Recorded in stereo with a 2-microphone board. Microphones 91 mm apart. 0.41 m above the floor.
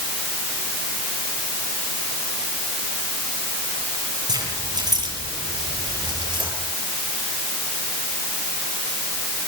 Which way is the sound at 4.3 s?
50° right (ahead or behind).